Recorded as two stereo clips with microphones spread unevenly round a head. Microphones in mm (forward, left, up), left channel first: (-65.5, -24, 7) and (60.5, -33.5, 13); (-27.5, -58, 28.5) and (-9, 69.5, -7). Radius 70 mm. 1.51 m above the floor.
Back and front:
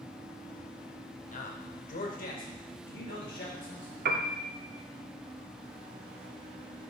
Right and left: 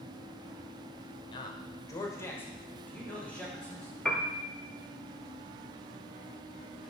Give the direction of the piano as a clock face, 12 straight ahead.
12 o'clock.